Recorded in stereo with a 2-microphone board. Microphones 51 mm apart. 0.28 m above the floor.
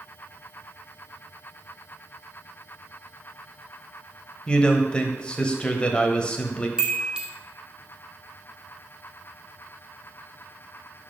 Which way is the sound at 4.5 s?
20° left (ahead or behind).